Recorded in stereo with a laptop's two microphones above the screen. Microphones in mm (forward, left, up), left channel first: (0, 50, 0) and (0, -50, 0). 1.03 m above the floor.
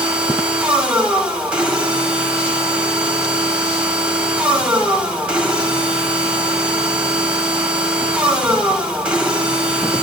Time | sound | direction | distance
0.0 | a machine running | 10° right (ahead or behind) | 1.1 m